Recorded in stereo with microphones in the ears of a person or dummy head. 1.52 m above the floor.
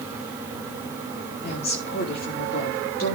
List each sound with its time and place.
1.4 s a woman speaking: 45° left (ahead or behind), 5 m